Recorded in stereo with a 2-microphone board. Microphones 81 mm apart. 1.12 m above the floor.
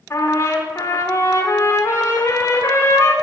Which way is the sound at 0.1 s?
30° left (ahead or behind).